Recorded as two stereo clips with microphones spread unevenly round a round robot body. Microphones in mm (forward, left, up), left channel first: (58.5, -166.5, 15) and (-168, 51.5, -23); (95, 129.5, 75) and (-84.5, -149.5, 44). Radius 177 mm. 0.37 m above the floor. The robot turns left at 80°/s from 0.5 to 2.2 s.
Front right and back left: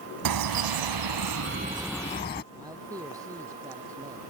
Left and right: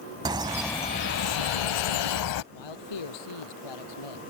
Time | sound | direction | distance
0.2 | a bird | 160° left | ?
2.5 | a man speaking | 55° left | ?